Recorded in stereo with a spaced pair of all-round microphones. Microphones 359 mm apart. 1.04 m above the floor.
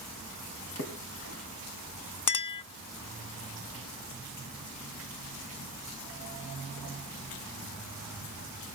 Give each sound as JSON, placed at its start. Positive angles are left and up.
{"t": 0.8, "sound": "a splash", "side_deg": 40, "distance_m": 2.5}
{"t": 2.3, "sound": "a clink", "side_deg": 55, "distance_m": 0.6}